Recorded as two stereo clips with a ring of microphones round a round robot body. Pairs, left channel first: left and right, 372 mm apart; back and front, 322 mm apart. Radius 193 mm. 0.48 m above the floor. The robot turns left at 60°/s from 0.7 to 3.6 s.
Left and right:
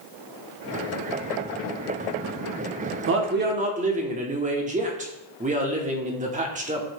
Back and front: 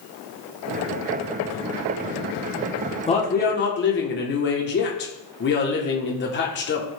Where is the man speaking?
115° right, 1.4 m; by 6.9 s 150° right, 1.4 m.